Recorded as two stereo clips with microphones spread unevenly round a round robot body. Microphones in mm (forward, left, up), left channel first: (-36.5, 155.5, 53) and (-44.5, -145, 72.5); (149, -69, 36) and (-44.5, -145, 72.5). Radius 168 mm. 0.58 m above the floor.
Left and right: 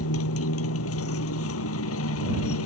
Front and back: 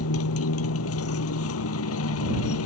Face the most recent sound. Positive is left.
turn(degrees=40)